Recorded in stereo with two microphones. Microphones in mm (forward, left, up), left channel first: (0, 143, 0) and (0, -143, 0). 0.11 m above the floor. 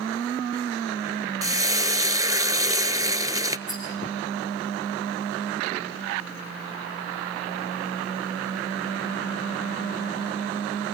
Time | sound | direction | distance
1.4 | frying | 10° right (ahead or behind) | 0.9 m
3.7 | a rattle | 25° left (ahead or behind) | 9 m